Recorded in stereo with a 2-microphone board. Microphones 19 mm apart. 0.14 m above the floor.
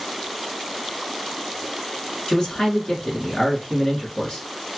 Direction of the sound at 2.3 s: 50° left (ahead or behind).